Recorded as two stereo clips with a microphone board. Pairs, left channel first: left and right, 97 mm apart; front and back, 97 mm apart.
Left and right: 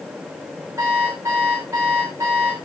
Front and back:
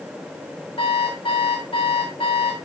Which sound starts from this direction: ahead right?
An alarm clock, at 0.8 s.